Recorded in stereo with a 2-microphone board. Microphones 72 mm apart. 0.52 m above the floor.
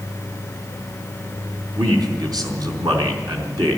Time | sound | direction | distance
1.8 | a man speaking | 65° right (ahead or behind) | 4 m